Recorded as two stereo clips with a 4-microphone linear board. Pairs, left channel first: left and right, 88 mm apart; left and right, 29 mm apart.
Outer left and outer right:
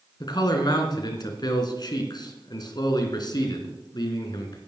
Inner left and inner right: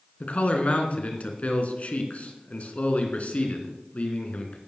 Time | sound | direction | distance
0.2 | a man speaking | 50° left (ahead or behind) | 3 m